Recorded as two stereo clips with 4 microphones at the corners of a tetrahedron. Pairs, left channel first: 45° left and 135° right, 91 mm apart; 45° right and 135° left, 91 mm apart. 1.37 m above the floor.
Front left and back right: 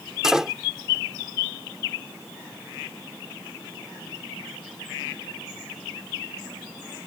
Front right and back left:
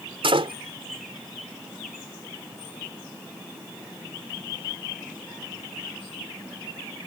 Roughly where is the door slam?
Behind left.